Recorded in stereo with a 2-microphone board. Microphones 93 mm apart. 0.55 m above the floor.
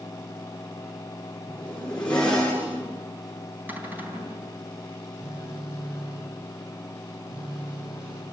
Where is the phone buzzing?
70° right (ahead or behind), 4.5 m.